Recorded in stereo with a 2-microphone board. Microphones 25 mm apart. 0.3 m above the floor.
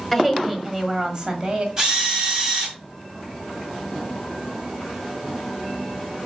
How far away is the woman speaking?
About 1.5 m.